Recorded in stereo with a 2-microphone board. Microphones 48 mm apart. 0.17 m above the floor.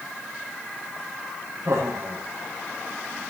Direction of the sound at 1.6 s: 75° right (ahead or behind).